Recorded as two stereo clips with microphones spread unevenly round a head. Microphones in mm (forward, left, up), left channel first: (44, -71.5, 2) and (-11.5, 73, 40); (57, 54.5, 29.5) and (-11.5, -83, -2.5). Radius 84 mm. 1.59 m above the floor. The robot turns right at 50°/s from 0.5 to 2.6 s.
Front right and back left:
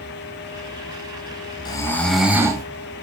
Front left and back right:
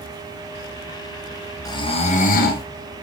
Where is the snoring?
5° right, 1.6 m; by 2.6 s 45° left, 1.6 m.